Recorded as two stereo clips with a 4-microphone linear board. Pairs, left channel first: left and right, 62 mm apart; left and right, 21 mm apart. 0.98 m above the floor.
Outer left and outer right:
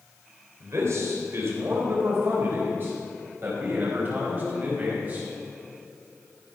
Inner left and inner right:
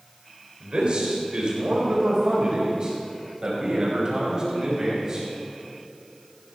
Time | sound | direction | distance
0.6 | a man speaking | 50° right (ahead or behind) | 3.5 m